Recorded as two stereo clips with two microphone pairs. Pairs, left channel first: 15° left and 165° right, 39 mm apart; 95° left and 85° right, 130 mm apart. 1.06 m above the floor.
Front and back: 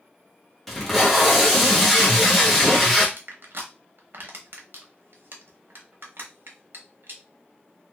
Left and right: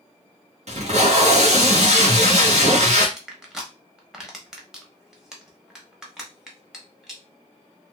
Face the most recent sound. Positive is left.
turn(degrees=-170)